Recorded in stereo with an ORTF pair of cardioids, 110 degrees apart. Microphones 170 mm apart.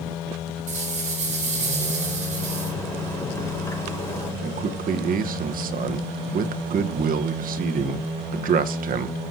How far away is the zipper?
About 5.5 m.